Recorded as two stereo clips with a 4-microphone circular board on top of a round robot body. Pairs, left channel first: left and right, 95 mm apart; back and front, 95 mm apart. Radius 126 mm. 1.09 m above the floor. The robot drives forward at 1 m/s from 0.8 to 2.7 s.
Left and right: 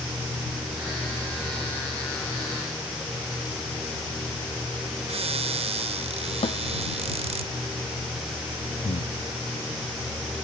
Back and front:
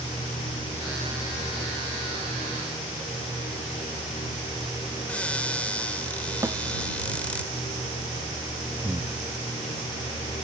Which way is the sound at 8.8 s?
70° left.